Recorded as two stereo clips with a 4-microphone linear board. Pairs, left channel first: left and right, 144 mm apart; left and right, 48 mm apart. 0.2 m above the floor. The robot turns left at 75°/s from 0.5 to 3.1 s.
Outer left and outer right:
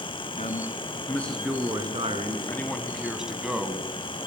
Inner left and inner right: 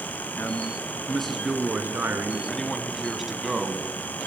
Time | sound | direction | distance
0.4 | a man speaking | 65° left | 3 m
2.5 | a man speaking | 15° left (ahead or behind) | 1.8 m